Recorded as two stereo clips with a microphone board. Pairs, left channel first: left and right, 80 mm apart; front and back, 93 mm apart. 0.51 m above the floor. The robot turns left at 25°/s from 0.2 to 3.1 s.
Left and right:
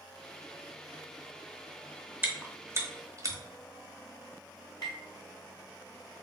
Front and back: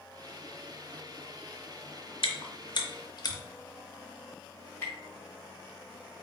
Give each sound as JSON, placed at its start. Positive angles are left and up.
{"t": 2.2, "sound": "chewing", "azimuth_deg": -20, "distance_m": 0.7}
{"t": 4.8, "sound": "tapping", "azimuth_deg": 65, "distance_m": 1.9}